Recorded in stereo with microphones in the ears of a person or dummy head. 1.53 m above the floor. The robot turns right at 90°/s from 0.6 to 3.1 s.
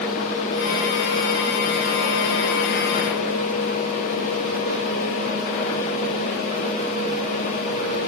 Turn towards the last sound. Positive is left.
No sound to turn to.